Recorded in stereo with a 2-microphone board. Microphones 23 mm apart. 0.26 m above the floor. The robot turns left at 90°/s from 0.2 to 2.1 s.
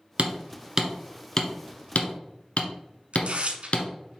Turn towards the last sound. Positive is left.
turn(degrees=-70)  # may be behind; listen again after turning